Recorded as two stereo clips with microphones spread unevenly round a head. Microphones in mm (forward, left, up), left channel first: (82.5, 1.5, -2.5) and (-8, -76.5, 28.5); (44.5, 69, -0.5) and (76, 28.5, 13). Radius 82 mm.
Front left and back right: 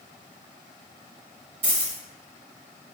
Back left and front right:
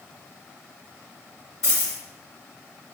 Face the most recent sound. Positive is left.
turn(degrees=-175)